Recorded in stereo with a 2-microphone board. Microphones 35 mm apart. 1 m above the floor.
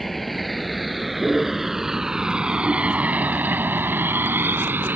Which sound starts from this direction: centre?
A vehicle, at 0.0 s.